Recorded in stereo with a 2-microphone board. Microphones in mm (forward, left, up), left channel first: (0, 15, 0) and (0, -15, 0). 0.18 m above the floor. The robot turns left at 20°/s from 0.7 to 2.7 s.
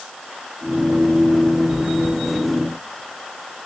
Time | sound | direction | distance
1.7 | chewing | 10° right (ahead or behind) | 1.3 m